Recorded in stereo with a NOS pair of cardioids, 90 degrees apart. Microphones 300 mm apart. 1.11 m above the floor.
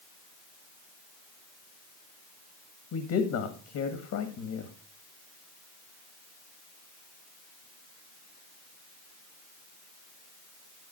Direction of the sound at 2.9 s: 70° left.